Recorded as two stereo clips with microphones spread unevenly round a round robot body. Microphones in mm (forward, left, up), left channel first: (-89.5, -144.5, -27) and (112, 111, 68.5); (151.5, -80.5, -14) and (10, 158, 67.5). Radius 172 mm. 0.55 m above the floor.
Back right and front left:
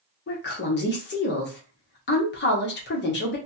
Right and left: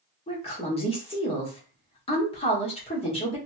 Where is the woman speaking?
105° right, 1.1 m.